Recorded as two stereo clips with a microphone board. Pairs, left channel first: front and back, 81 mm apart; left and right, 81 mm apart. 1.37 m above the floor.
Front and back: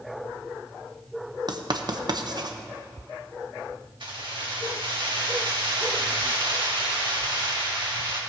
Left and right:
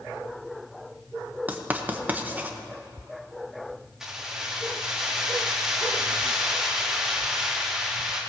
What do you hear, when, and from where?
1.5 s writing: 160° right, 0.9 m
4.0 s keys jangling: 175° right, 2 m